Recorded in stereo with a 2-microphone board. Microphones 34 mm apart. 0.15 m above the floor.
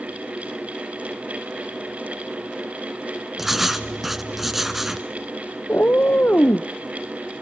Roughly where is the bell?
No bell in this recording.